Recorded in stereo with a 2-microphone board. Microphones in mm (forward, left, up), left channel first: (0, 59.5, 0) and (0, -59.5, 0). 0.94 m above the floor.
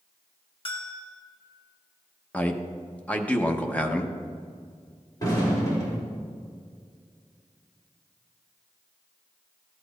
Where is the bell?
45° left (ahead or behind), 1.2 m.